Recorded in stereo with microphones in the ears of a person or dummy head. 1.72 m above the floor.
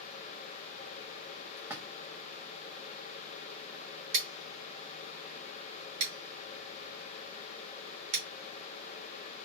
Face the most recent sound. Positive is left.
turn(degrees=-75)  # may be behind; listen again after turning